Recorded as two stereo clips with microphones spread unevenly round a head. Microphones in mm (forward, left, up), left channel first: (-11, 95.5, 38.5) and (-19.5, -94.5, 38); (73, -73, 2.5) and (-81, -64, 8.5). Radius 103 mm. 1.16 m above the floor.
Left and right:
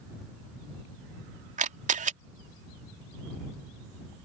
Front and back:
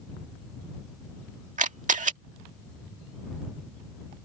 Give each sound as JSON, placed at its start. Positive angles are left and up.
{"t": 1.6, "sound": "a camera shutter", "azimuth_deg": -145}